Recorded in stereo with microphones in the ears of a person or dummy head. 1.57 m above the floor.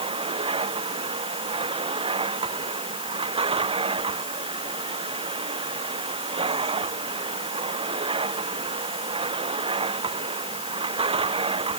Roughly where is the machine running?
Right.